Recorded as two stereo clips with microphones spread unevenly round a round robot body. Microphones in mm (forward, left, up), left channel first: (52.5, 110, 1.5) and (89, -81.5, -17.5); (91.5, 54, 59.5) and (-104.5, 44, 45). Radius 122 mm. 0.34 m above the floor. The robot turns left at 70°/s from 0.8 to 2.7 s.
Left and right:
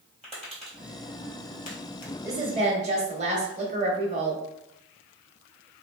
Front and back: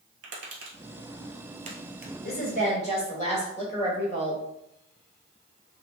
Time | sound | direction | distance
0.2 | tapping | 175° right | 1.2 m
2.2 | a woman speaking | 15° right | 1.2 m